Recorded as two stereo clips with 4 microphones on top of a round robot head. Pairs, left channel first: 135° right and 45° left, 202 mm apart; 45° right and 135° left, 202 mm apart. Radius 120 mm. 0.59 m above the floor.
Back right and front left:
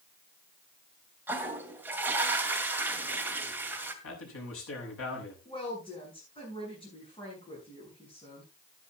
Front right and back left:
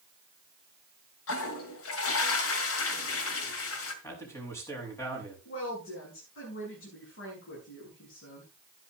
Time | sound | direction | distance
1.3 | a toilet flushing | 35° right | 2 m
4.0 | a man speaking | 125° right | 6.5 m
5.5 | a woman speaking | 70° right | 7.5 m